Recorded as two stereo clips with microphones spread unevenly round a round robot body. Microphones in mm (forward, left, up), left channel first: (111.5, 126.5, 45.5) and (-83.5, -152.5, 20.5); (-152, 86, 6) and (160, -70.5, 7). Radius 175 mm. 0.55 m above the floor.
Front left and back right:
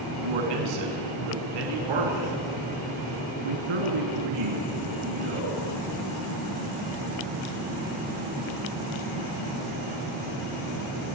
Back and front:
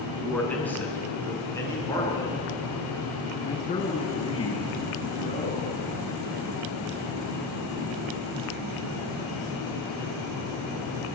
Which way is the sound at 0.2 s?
120° right.